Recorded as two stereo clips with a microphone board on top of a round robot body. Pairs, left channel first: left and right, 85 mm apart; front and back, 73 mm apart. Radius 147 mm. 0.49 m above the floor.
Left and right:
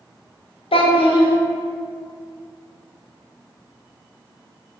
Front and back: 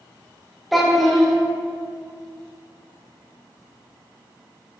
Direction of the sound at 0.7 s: 90° left.